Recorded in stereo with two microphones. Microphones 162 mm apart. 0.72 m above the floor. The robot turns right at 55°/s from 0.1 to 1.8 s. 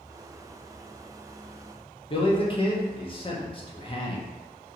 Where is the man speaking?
35° left (ahead or behind), 0.7 m.